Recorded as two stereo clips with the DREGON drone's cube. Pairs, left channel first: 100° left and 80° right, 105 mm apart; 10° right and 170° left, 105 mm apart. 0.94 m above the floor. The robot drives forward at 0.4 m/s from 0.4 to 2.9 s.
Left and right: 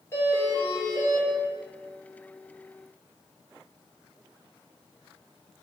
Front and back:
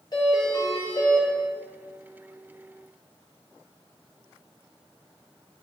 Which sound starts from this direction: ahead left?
A doorbell, at 0.1 s.